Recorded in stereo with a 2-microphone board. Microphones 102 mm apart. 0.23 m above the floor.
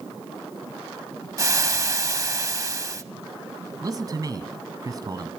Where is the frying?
35° right (ahead or behind), 0.7 m.